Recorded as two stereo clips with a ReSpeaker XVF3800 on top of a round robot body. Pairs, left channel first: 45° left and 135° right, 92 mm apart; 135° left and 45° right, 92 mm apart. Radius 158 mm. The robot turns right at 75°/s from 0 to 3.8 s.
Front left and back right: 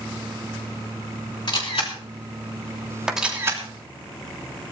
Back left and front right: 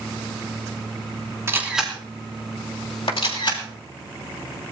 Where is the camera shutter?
15° left, 4 m; by 3.6 s 175° left, 4 m.